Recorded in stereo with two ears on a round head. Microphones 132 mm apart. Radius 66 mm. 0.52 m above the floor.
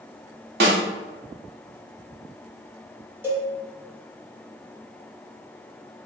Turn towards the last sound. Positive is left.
turn(degrees=-15)  # may be behind; listen again after turning